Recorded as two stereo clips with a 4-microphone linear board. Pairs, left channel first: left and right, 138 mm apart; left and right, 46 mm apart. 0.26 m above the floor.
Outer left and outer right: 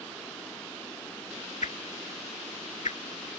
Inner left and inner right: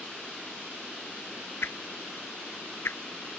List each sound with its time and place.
1.6 s a whoosh: 70° left (ahead or behind)